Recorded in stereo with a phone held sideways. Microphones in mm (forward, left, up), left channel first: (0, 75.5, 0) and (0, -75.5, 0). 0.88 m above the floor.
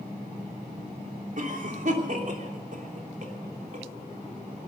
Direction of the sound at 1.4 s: 55° right (ahead or behind).